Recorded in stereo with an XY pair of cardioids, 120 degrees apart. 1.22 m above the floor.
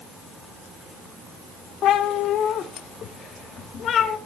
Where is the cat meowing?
70° left, 1.8 m; by 4.2 s 50° left, 3 m.